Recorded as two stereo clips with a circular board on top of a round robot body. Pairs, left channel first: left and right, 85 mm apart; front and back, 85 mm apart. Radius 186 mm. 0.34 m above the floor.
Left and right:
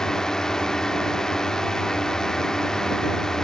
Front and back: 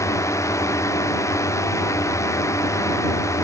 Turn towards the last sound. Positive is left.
turn(degrees=10)